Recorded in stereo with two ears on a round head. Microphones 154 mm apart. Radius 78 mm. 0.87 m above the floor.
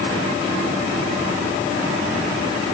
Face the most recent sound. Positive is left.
No sound to turn to.